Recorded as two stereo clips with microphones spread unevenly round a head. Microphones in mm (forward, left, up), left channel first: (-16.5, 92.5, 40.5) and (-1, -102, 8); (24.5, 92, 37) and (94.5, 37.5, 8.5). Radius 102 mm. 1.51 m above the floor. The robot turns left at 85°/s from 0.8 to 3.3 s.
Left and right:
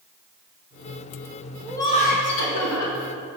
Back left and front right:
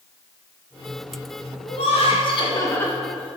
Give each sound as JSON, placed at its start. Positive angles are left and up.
{"t": 1.6, "sound": "laughter", "azimuth_deg": 180, "distance_m": 1.4}